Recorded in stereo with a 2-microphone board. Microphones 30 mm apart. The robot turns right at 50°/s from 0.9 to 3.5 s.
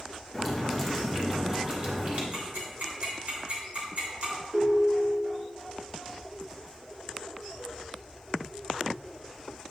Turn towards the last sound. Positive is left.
turn(degrees=-35)  # may be behind; listen again after turning